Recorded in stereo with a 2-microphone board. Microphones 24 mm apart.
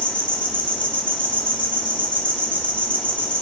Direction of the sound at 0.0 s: 70° left (ahead or behind).